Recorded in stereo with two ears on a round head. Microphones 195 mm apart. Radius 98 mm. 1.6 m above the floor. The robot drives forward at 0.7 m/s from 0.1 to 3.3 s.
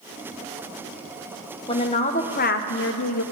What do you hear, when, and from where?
1.7 s a woman speaking: 25° left (ahead or behind), 1.3 m; by 3.2 s 75° left (ahead or behind), 0.6 m